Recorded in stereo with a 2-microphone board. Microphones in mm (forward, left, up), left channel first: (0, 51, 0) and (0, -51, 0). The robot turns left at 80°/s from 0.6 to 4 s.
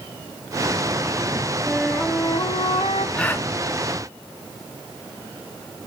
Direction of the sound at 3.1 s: 10° left (ahead or behind).